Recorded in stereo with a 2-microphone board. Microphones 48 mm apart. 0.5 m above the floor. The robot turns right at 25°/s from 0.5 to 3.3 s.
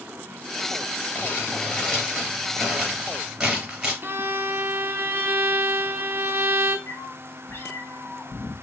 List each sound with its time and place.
1.1 s crumpling: 45° left (ahead or behind), 2.5 m; by 3.9 s 10° right (ahead or behind), 2.5 m
4.0 s a violin: 45° right (ahead or behind), 0.8 m
6.9 s a cat meowing: 60° left (ahead or behind), 1.1 m